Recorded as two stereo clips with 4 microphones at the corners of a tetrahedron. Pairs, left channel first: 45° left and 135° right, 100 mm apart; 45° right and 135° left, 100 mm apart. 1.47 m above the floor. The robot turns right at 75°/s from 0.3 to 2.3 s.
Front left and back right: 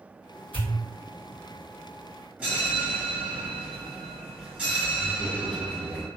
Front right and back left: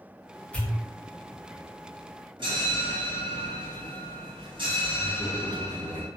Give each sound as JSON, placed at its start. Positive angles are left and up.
{"t": 0.5, "sound": "a pop", "azimuth_deg": 30, "distance_m": 1.1}
{"t": 2.4, "sound": "a bell", "azimuth_deg": 150, "distance_m": 1.9}